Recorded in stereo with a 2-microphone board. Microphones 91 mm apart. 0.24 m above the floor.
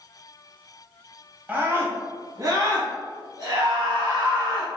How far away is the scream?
About 1.0 m.